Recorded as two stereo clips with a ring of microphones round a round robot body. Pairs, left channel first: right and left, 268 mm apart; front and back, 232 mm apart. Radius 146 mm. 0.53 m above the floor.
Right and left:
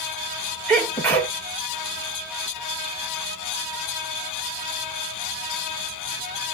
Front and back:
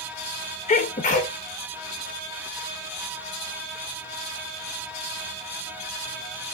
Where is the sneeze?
15° right, 1.0 m.